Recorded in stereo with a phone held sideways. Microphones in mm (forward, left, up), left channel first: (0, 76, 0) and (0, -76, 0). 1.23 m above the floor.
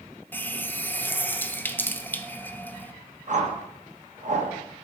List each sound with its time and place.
0.3 s a running tap: 10° left (ahead or behind), 0.5 m
3.3 s a whoosh: 55° right (ahead or behind), 1.4 m